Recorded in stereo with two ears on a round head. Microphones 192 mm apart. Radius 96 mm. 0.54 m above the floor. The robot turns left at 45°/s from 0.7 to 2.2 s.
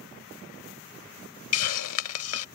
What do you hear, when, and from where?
1.5 s a hiss: 100° left; by 2.5 s 70° left